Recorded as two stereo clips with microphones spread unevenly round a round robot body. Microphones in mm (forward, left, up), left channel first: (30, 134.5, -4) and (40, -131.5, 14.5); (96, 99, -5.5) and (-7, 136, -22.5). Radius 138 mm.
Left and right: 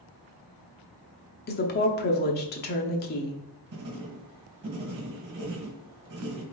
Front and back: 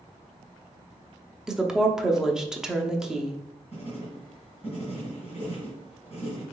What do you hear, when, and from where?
1.5 s a woman speaking: 90° left, 0.8 m
3.7 s writing: 120° right, 1.4 m